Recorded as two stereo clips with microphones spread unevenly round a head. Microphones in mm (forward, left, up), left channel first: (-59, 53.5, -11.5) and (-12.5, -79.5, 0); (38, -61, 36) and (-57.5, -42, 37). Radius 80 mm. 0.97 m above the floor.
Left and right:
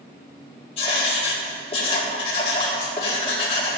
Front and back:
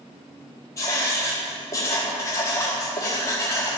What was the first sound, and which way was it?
Writing, 50° left.